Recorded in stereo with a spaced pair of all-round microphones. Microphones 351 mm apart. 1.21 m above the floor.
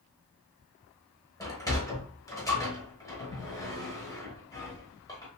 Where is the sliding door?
10° left (ahead or behind), 0.9 m.